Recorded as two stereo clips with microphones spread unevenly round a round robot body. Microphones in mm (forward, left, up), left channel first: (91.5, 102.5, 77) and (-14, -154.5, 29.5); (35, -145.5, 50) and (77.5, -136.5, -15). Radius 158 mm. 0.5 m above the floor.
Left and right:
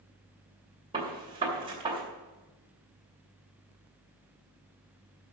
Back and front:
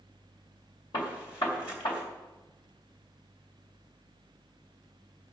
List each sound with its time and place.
0.9 s a gunshot: straight behind, 2.5 m